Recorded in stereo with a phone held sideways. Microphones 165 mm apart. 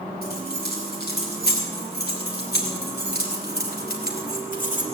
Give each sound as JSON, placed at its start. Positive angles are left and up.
{"t": 0.2, "sound": "keys jangling", "side_deg": 65, "distance_m": 5.0}